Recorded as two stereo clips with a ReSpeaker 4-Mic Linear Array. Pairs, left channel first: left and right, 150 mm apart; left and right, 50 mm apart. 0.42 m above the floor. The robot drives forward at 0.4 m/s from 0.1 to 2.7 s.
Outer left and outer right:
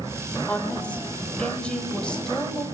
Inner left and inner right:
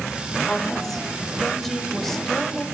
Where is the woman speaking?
10° left (ahead or behind), 1.2 m; by 2.6 s 5° left (ahead or behind), 1.9 m.